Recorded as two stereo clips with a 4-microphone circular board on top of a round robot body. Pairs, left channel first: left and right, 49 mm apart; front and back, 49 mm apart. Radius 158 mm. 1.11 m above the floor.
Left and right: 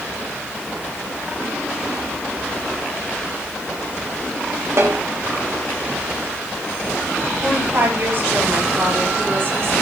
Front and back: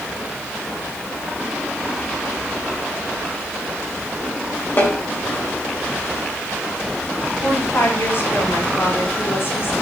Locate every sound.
4.8 s a snare drum: 55° right, 3.5 m
7.4 s a woman speaking: 45° right, 4 m